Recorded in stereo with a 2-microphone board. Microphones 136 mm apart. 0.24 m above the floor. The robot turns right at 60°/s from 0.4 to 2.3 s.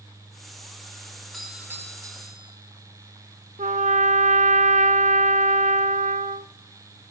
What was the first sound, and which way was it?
A doorbell, straight behind.